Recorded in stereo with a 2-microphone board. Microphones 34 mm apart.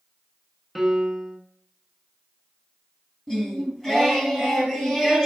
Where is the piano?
Centre (ahead or behind), 0.9 m.